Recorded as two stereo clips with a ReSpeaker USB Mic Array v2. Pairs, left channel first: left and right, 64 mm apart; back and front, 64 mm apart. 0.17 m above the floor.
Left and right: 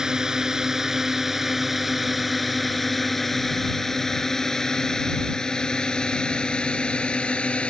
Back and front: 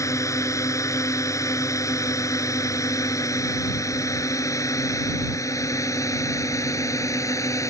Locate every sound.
0.0 s a drone: 165° right; by 7.7 s 160° left